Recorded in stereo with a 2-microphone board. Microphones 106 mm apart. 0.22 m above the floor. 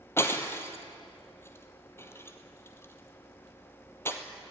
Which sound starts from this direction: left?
Breaking glass, at 0.2 s.